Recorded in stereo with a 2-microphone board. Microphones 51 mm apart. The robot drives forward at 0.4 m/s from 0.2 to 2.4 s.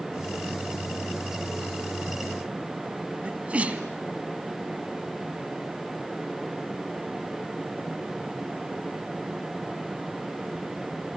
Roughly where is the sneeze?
Right.